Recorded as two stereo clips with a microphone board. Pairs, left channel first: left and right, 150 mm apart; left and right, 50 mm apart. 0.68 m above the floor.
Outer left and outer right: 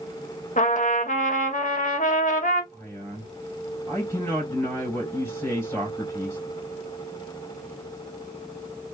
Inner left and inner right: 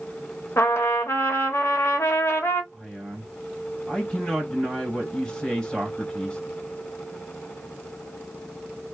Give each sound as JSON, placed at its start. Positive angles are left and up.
{"t": 0.6, "sound": "a trumpet", "side_deg": 55, "distance_m": 0.9}
{"t": 2.7, "sound": "a man speaking", "side_deg": 15, "distance_m": 2.5}